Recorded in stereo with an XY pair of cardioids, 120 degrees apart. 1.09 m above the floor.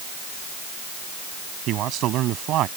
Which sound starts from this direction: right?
A man speaking, at 1.7 s.